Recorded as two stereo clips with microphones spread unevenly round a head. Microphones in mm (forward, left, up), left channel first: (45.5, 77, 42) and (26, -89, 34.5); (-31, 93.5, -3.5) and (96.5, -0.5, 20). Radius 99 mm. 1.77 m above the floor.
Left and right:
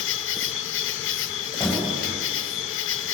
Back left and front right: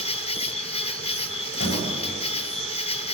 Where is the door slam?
170° left, 8 m.